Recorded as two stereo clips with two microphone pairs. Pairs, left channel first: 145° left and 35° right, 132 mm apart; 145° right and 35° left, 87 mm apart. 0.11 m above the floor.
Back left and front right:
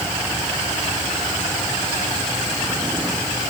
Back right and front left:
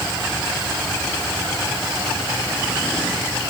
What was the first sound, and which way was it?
Only background noise.